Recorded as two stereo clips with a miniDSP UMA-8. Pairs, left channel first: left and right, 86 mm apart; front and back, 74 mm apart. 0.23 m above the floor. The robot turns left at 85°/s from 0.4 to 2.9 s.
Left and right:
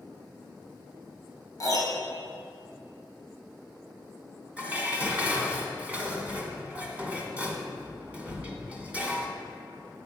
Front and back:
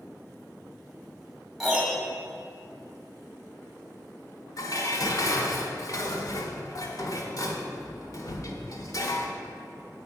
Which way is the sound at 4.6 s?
20° right.